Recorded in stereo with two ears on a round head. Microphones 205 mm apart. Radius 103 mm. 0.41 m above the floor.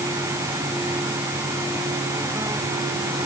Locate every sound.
Only background noise.